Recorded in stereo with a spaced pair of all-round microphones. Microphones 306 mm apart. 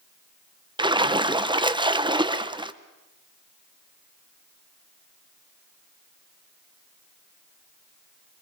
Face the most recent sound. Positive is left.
turn(degrees=-15)  # may be behind; listen again after turning